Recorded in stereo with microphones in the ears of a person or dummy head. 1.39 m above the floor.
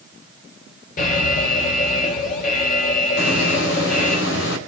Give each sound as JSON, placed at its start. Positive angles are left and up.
{"t": 1.0, "sound": "an alarm", "side_deg": 50, "distance_m": 5.5}
{"t": 3.2, "sound": "a hiss", "side_deg": 75, "distance_m": 3.0}